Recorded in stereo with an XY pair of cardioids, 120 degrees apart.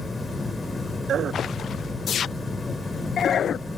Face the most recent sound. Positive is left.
turn(degrees=20)